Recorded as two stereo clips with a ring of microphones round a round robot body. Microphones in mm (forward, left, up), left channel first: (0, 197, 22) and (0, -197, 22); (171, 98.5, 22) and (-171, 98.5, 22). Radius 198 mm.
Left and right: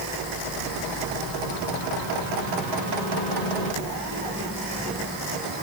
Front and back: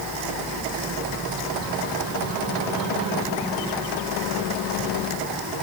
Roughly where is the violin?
I don't hear a violin.